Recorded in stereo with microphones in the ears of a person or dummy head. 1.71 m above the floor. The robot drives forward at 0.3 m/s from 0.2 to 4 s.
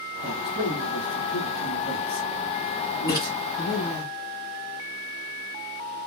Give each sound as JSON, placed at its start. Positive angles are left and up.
{"t": 0.2, "sound": "a man speaking", "side_deg": -5, "distance_m": 0.8}
{"t": 3.1, "sound": "a splash", "side_deg": 20, "distance_m": 1.2}